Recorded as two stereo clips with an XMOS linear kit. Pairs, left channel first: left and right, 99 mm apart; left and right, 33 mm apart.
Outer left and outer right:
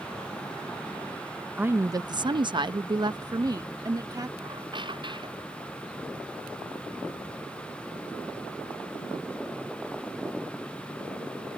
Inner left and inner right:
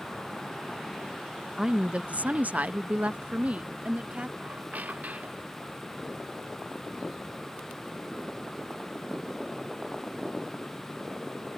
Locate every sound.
1.6 s a woman speaking: 15° right (ahead or behind); by 4.3 s 40° right (ahead or behind)
4.4 s a squeak: 55° right (ahead or behind)